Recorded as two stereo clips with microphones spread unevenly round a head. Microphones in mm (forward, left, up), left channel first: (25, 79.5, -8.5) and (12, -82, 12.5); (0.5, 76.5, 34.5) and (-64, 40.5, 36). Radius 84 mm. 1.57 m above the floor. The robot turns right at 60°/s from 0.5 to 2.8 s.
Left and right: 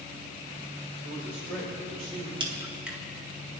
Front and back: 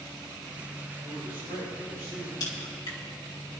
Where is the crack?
35° right, 2 m; by 3.0 s 10° right, 2 m.